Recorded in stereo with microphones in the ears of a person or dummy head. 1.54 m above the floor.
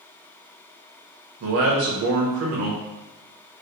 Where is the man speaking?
55° right (ahead or behind), 1.0 m.